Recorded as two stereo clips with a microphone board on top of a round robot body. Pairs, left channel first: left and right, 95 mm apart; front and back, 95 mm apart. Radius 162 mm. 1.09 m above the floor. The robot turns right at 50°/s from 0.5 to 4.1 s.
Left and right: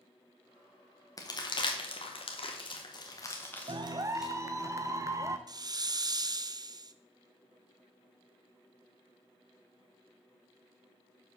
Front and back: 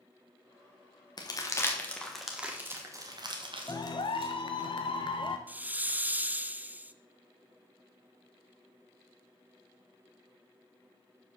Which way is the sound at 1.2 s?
40° left.